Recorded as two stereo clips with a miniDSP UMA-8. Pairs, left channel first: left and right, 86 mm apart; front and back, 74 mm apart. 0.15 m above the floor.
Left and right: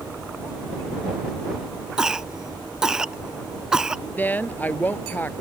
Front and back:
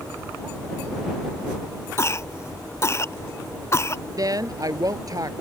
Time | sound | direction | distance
2.0 | a cough | 10° right | ?
4.2 | a woman speaking | 155° left | ?